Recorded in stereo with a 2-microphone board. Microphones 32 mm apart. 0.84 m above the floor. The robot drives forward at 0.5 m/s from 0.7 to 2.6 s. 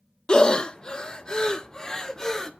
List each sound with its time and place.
0.3 s breathing: 25° left (ahead or behind), 0.7 m; by 2.5 s 15° left (ahead or behind), 1.1 m